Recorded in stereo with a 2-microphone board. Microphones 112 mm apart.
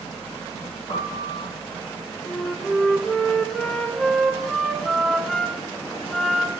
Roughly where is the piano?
Left.